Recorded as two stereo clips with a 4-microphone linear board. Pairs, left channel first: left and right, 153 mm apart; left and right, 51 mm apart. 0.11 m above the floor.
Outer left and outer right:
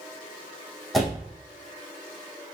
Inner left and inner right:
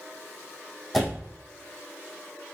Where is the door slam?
Centre (ahead or behind), 3.5 m.